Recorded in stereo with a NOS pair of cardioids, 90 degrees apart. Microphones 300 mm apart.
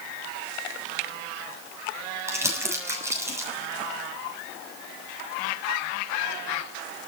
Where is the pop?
No pop in this recording.